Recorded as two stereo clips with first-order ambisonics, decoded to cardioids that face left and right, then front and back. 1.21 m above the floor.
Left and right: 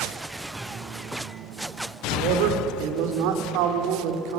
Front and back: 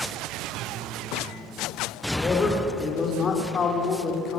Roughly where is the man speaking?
Right.